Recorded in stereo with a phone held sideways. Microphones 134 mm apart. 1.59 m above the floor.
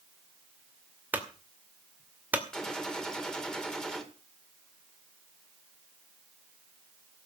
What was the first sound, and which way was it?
A clunk, 10° right (ahead or behind).